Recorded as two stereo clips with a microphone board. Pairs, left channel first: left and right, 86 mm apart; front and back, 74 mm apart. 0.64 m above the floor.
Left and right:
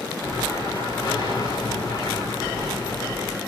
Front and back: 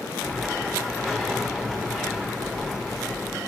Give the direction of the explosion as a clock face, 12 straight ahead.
9 o'clock.